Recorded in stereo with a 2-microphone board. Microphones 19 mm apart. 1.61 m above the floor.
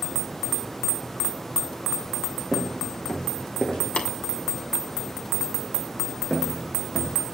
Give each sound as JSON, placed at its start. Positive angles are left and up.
{"t": 2.5, "sound": "footsteps", "side_deg": 45, "distance_m": 5.5}
{"t": 4.0, "sound": "tapping", "side_deg": 65, "distance_m": 2.5}
{"t": 6.3, "sound": "footsteps", "side_deg": 15, "distance_m": 6.0}